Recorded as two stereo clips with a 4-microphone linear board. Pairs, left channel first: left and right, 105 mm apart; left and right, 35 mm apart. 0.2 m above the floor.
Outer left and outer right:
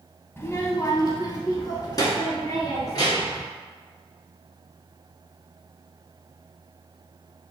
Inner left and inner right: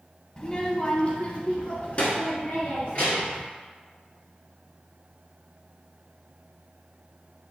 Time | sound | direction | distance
0.4 | a child speaking | 20° left (ahead or behind) | 0.6 m